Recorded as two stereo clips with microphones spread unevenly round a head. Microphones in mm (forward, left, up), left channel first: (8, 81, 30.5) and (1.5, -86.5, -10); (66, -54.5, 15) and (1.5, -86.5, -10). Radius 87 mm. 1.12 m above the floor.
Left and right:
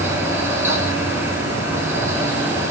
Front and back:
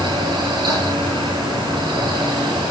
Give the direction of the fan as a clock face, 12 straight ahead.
6 o'clock.